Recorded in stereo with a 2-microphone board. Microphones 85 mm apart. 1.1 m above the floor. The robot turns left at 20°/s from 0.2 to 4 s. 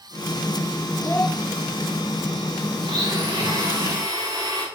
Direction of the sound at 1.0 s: 25° left (ahead or behind).